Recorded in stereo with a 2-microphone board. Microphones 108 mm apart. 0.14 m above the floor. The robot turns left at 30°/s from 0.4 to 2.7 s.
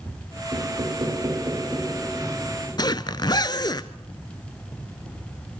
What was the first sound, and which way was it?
Knocking, 120° right.